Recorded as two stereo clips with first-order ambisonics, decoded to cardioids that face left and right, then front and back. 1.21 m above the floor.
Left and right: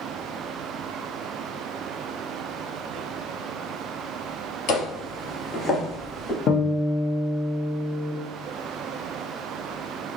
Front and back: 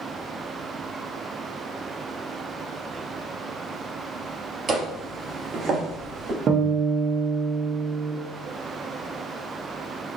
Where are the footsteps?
110° left, 1.6 m; by 6.4 s 175° left, 1.5 m.